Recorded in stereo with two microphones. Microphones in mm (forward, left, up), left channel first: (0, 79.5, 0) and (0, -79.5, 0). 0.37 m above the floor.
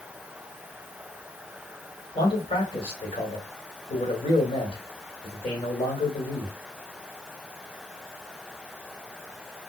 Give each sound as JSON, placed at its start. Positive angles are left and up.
{"t": 2.1, "sound": "a man speaking", "side_deg": 40, "distance_m": 1.9}